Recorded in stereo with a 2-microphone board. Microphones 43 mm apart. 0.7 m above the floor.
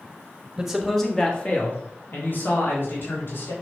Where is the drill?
No drill in this recording.